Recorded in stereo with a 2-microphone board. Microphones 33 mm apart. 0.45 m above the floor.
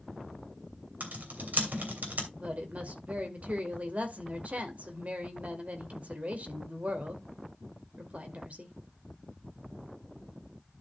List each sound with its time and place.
1.0 s typing on a keyboard: 60° right (ahead or behind), 2.5 m
2.3 s a woman speaking: 45° right (ahead or behind), 2.0 m